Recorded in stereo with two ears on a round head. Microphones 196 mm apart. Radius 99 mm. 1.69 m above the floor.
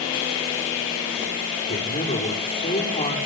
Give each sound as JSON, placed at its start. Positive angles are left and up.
{"t": 1.7, "sound": "a man speaking", "side_deg": 25, "distance_m": 5.0}